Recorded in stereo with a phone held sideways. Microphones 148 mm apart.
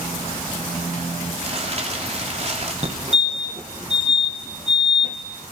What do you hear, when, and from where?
1.4 s crumpling: 45° right (ahead or behind), 3.5 m
2.8 s a fire alarm: 45° right (ahead or behind), 2 m